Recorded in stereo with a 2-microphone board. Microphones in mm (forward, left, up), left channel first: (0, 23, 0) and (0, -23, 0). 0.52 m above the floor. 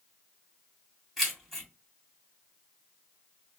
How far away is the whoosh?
I don't hear a whoosh.